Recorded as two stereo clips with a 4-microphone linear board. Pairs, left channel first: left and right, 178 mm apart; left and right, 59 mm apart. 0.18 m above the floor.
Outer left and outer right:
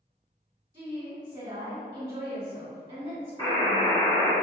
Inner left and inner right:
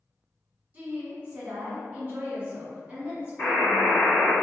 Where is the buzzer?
25° left (ahead or behind), 1.3 m.